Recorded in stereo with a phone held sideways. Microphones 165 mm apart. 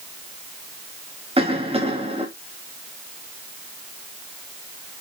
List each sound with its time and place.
1.4 s a cough: 35° right (ahead or behind), 2.5 m